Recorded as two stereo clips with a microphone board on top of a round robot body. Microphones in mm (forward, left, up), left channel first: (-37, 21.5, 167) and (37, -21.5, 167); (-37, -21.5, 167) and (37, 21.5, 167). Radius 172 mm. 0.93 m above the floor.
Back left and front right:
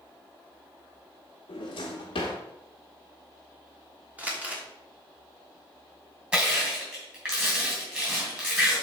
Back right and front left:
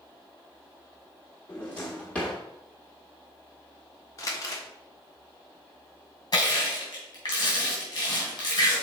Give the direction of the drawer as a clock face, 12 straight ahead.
8 o'clock.